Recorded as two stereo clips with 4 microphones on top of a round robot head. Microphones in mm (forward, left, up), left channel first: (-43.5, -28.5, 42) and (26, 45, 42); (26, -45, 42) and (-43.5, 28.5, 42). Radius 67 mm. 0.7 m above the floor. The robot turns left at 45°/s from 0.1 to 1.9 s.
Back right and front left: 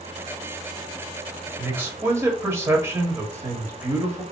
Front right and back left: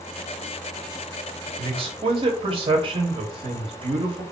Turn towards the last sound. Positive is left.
turn(degrees=110)